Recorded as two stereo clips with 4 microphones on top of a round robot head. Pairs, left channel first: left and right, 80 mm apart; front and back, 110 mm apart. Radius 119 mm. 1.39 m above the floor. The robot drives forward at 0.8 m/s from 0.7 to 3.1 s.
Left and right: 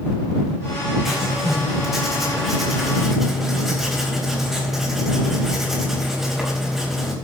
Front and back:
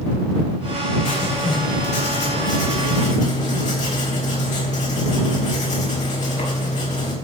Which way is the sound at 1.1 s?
5° right.